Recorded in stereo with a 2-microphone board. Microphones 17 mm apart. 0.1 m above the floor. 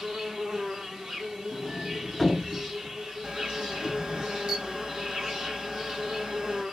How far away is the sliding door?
About 0.9 m.